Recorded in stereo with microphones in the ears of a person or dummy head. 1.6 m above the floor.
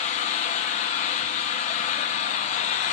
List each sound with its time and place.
0.0 s an engine running: 40° left (ahead or behind), 0.9 m